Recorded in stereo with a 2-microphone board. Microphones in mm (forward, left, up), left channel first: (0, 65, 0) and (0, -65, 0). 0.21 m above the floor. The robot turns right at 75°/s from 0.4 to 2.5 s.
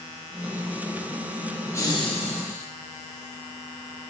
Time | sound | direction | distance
1.7 | laughter | 20° left | 3.5 m